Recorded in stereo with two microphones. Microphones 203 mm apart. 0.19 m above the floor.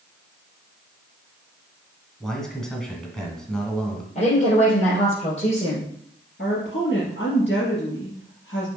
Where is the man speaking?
5° left (ahead or behind), 1.9 m.